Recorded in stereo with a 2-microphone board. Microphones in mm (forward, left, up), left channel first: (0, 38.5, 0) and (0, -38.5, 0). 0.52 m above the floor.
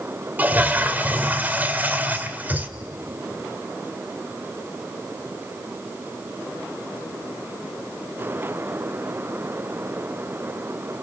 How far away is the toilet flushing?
About 1.5 m.